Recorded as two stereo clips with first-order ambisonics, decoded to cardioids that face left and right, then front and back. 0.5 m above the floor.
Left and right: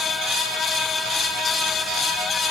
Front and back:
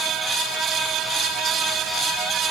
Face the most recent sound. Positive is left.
No sound to turn to.